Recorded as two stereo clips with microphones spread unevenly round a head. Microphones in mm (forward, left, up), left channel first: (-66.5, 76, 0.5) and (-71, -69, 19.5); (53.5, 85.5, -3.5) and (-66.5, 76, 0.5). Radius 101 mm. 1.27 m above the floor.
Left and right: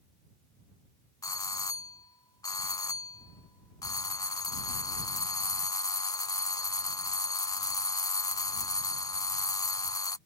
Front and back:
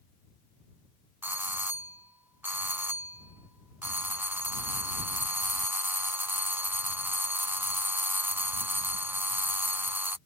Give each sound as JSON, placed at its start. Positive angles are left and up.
{"t": 1.2, "sound": "a doorbell", "azimuth_deg": 120}